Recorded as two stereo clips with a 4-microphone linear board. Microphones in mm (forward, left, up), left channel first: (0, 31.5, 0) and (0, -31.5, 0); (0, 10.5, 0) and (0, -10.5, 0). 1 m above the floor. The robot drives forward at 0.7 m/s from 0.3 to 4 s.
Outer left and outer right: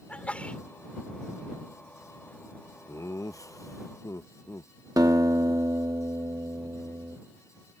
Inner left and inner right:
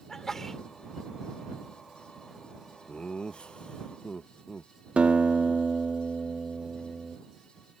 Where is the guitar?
80° right.